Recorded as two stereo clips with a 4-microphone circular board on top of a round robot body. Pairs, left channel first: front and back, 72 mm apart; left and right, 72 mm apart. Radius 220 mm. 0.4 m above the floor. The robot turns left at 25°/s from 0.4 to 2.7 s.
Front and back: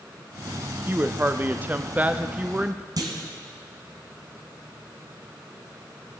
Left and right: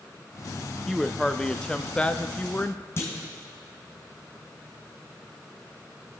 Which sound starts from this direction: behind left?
A clunk, at 3.0 s.